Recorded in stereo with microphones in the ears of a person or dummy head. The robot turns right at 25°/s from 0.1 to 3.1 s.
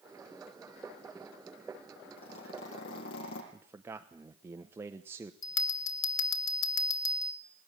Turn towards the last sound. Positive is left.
turn(degrees=75)  # may be behind; listen again after turning